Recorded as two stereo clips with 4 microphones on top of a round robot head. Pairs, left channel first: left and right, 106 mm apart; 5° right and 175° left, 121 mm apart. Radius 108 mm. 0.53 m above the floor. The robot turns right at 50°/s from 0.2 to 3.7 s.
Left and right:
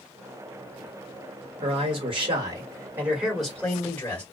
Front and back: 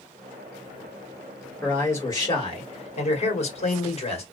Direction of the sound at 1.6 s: 85° right.